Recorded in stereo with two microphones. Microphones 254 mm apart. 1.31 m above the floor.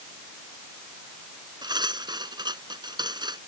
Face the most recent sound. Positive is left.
turn(degrees=-15)  # may be behind; listen again after turning